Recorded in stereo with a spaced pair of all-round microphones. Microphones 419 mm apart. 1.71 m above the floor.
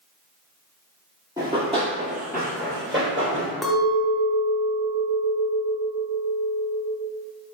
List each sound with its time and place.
1.4 s running footsteps: 10° right (ahead or behind), 1.8 m; by 3.5 s 30° right (ahead or behind), 2 m
3.6 s a clink: centre (ahead or behind), 0.7 m